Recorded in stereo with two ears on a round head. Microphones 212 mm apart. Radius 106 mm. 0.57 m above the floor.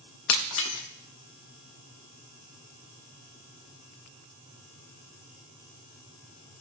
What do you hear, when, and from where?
0.3 s breaking glass: 60° left (ahead or behind), 0.8 m